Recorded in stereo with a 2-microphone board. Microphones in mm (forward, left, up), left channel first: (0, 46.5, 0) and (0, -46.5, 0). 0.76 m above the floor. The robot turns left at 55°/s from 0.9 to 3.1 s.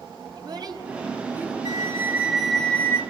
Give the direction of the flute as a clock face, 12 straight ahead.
4 o'clock.